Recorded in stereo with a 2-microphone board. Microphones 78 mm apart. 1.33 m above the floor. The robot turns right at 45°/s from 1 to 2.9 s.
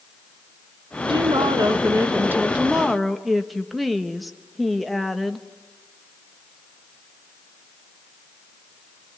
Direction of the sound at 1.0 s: 85° right.